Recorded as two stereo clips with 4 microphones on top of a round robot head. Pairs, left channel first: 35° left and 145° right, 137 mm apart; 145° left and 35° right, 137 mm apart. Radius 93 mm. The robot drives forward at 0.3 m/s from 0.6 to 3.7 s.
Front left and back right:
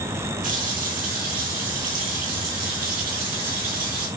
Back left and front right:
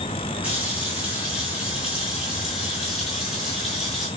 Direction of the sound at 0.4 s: 115° right.